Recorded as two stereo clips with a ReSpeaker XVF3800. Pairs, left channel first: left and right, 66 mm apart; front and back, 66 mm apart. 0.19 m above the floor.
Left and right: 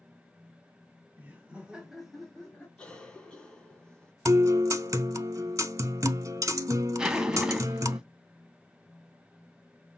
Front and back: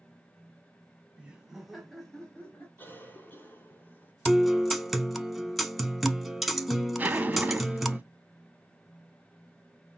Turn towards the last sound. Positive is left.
turn(degrees=-155)